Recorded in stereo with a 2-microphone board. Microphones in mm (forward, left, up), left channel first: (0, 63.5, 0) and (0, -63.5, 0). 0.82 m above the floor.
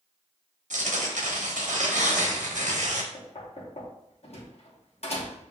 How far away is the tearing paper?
About 1.0 m.